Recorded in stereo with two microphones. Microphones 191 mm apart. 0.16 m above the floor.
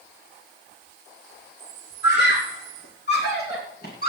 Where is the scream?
60° left (ahead or behind), 8.5 m; by 4.1 s 50° left (ahead or behind), 7.5 m.